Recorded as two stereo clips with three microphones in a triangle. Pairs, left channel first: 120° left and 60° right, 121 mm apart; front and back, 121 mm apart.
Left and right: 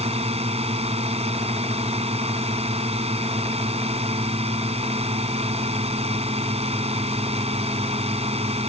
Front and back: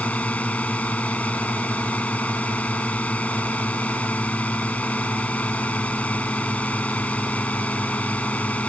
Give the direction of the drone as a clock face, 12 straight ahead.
3 o'clock.